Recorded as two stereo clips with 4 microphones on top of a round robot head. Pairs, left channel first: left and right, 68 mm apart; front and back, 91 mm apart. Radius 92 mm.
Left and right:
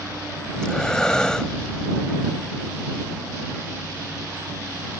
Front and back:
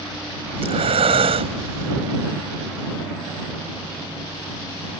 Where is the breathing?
170° left.